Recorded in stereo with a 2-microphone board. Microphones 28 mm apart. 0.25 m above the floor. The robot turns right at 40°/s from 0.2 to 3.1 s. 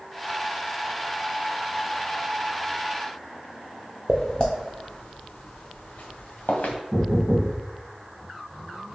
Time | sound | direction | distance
4.1 | footsteps | 25° left (ahead or behind) | 0.8 m
6.9 | knocking | 5° left (ahead or behind) | 1.3 m